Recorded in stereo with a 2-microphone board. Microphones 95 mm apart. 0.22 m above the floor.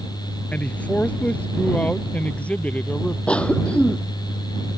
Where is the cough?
10° left (ahead or behind).